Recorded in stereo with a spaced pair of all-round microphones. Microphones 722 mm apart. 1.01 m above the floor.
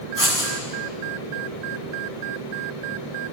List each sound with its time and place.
0.2 s writing: 45° left (ahead or behind), 8.5 m